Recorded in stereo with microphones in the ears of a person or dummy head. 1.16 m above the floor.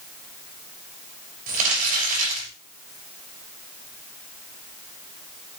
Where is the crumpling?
50° right (ahead or behind), 6 m.